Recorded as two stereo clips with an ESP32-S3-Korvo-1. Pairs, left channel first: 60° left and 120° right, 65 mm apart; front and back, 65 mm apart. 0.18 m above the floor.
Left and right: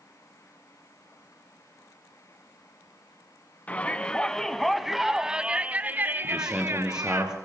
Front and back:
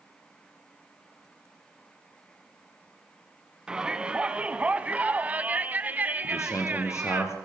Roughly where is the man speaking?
Ahead right.